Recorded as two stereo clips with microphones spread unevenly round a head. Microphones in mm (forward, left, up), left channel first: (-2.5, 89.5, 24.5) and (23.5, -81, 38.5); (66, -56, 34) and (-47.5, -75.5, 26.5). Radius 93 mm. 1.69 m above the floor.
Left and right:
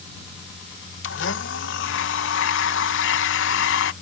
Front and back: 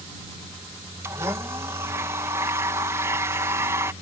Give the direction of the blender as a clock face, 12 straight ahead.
8 o'clock.